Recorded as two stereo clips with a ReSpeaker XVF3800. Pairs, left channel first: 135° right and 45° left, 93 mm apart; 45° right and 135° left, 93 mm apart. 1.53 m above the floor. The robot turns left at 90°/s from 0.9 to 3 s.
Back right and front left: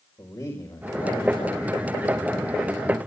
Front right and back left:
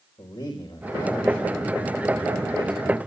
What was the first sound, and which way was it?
A man speaking, 80° right.